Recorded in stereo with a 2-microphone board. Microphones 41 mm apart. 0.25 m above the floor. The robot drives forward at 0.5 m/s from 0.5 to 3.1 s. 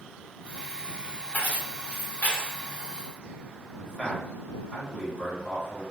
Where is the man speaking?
25° left (ahead or behind), 1.9 m.